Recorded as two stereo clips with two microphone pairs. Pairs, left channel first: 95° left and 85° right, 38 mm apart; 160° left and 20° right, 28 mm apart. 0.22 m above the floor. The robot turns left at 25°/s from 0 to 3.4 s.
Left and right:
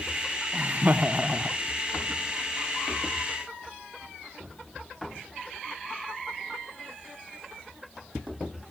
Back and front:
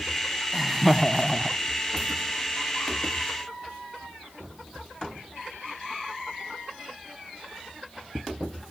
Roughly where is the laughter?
Right.